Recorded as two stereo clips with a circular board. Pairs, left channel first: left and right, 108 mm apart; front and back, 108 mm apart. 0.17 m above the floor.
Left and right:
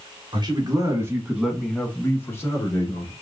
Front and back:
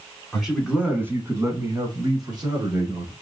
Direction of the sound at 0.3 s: 95° right.